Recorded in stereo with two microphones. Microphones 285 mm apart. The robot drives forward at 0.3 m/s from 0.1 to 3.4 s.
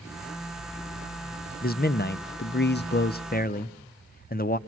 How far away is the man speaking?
About 0.5 m.